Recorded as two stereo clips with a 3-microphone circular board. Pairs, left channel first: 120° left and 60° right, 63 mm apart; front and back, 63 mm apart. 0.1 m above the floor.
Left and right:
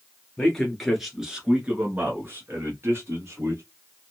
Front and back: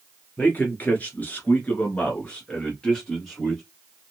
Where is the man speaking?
50° left, 1.5 m; by 3.6 s 80° right, 2.0 m.